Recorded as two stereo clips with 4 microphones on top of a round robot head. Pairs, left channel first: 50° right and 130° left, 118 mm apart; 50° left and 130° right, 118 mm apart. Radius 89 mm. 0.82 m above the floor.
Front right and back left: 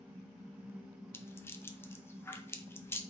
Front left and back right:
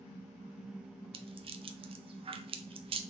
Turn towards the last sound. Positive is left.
turn(degrees=-115)